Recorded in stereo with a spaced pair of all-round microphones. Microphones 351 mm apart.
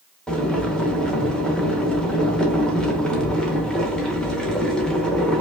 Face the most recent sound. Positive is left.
turn(degrees=0)  # may be behind; listen again after turning